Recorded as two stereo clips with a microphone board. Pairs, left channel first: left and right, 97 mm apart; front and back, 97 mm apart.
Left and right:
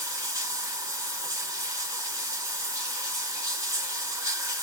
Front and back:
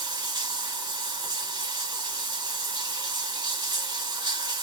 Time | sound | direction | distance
0.0 | running water | 150° right | 2.5 m